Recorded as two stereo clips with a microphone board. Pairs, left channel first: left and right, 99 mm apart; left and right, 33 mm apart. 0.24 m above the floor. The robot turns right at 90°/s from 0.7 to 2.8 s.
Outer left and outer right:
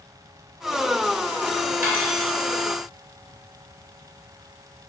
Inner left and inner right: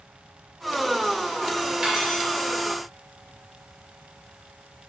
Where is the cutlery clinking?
25° right, 2 m; by 2.3 s 15° left, 2 m.